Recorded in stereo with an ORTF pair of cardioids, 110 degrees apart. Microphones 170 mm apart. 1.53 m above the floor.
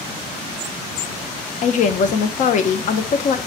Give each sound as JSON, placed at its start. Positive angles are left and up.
{"t": 1.6, "sound": "a woman speaking", "azimuth_deg": 45, "distance_m": 0.5}